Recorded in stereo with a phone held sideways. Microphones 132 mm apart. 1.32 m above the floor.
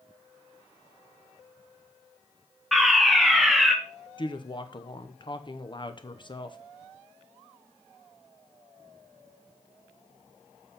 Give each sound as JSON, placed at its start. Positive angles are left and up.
{"t": 2.7, "sound": "a fire alarm", "side_deg": 0, "distance_m": 1.0}
{"t": 4.2, "sound": "a woman speaking", "side_deg": 35, "distance_m": 0.9}